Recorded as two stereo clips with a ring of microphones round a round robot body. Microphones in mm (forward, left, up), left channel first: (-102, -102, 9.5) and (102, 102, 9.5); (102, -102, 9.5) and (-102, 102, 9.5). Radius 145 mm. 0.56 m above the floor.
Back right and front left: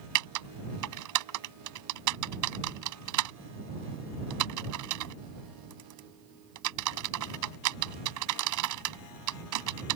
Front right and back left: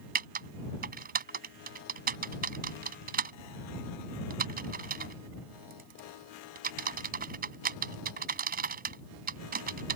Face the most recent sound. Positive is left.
turn(degrees=75)